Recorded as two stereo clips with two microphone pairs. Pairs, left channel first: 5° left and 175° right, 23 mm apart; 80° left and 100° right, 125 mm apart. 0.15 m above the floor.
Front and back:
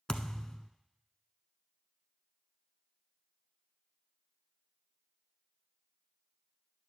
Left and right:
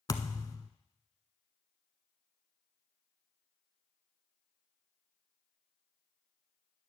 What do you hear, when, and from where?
0.1 s a thud: 45° left, 0.8 m